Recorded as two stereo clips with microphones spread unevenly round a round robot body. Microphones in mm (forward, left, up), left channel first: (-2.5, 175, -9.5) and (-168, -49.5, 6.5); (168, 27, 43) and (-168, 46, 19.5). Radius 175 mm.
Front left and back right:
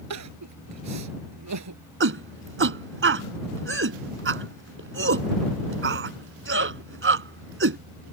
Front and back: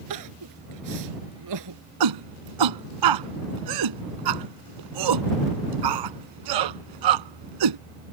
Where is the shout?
170° right.